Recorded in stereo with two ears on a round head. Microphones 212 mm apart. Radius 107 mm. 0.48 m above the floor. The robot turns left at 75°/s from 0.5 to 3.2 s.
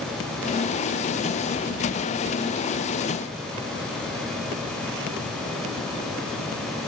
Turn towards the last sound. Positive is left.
No sound to turn to.